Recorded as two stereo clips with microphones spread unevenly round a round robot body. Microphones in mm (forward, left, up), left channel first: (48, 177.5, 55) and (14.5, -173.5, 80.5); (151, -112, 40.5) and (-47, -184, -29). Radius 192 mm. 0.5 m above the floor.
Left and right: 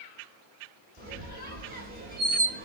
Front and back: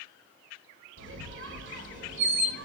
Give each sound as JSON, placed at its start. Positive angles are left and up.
{"t": 1.0, "sound": "a squeak", "azimuth_deg": -160, "distance_m": 1.1}